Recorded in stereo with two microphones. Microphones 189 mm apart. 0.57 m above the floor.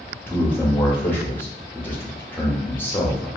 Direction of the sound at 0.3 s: 10° left (ahead or behind).